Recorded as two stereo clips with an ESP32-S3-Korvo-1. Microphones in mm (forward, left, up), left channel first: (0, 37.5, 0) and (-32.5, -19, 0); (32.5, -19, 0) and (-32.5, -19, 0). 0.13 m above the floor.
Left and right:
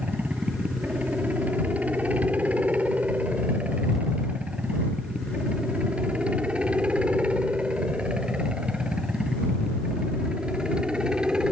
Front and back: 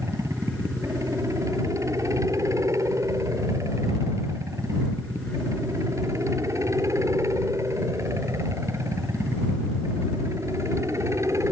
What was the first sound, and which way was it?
A helicopter, straight behind.